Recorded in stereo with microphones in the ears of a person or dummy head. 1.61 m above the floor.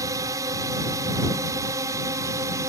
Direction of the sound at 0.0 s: 15° right (ahead or behind).